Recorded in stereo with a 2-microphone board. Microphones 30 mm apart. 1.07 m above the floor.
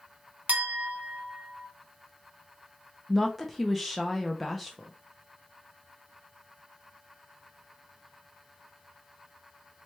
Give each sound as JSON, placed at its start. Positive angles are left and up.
{"t": 0.5, "sound": "a clink", "side_deg": -60, "distance_m": 0.7}
{"t": 3.1, "sound": "a woman speaking", "side_deg": 0, "distance_m": 0.6}